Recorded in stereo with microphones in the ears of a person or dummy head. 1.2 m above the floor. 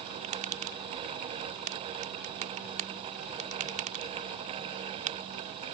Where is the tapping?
45° right (ahead or behind).